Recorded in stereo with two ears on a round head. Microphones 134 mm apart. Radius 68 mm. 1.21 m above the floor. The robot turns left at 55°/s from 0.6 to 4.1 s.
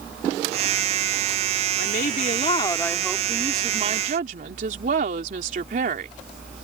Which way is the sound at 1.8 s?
70° left.